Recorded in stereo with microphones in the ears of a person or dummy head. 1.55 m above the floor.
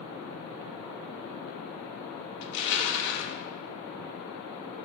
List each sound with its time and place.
2.4 s crushing: 60° left (ahead or behind), 0.5 m